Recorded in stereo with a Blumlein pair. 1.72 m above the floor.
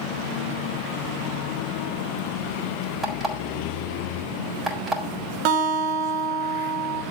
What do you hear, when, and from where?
3.0 s an alarm clock: 15° right, 4 m
5.5 s a guitar: 45° right, 2 m